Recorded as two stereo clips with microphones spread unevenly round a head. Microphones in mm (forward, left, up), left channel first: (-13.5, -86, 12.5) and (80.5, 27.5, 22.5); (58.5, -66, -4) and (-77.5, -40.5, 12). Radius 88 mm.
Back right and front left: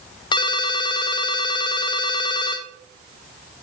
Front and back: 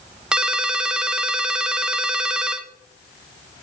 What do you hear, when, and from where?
0.3 s a ringtone: 130° right, 0.7 m